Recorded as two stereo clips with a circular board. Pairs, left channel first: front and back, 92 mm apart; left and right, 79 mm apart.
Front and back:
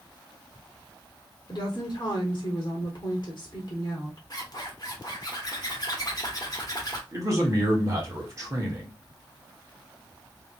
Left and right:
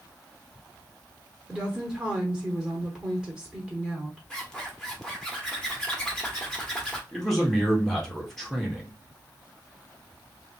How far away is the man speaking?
About 1.4 m.